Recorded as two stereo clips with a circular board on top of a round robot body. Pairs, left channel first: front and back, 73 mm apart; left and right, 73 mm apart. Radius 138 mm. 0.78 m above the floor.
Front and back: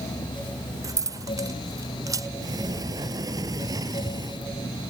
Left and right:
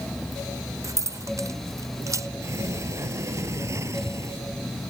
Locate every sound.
0.8 s keys jangling: 140° right
2.4 s a sliding door: 145° right